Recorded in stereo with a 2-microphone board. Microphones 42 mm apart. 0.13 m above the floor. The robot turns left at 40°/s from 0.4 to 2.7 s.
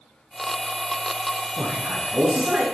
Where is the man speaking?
120° right, 4.5 m; by 2.6 s 165° right, 4.5 m.